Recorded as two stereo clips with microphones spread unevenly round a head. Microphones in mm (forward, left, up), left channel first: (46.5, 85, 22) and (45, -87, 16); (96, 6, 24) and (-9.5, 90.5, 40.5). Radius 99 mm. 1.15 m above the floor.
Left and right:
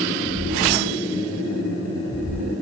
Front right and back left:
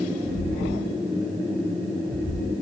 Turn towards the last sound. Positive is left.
turn(degrees=160)